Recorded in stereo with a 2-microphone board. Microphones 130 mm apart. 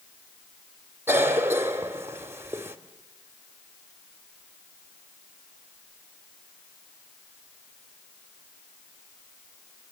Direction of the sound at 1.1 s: 20° right (ahead or behind).